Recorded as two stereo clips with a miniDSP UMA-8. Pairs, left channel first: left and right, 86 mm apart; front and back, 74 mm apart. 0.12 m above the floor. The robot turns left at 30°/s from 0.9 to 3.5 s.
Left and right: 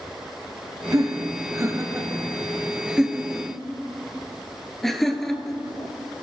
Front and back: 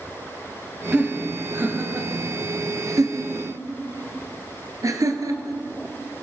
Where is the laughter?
105° right, 1.8 m; by 6.2 s 175° left, 1.8 m.